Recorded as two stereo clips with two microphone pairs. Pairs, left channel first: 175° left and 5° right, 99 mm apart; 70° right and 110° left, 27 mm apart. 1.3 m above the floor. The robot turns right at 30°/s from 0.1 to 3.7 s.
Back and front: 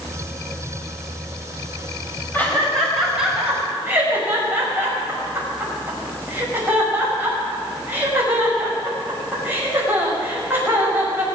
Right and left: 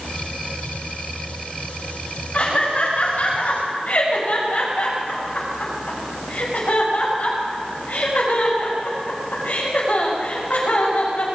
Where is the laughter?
115° right, 6 m; by 11.2 s 75° right, 6 m.